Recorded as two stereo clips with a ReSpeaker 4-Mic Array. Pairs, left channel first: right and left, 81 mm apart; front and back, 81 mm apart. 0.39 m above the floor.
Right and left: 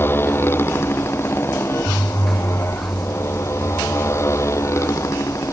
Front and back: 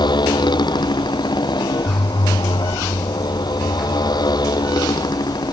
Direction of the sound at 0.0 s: 25° right.